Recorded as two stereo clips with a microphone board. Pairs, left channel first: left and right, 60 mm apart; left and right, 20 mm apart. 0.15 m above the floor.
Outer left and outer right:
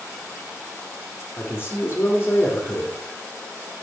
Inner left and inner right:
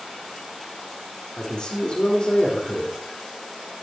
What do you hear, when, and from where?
1.4 s a man speaking: 35° left (ahead or behind), 4.5 m